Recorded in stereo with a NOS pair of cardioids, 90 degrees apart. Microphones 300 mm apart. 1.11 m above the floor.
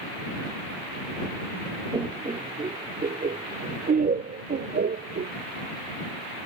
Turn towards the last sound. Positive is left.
turn(degrees=-35)